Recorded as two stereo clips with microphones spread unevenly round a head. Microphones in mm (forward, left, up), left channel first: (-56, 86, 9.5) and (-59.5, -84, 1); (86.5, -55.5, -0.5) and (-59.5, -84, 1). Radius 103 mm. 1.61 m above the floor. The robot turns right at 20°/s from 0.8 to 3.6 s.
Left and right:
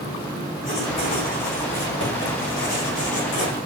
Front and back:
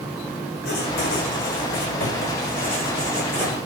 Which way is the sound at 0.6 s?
20° left.